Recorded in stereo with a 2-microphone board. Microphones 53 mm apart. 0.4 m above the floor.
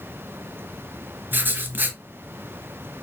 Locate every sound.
1.3 s writing: 40° right (ahead or behind), 0.8 m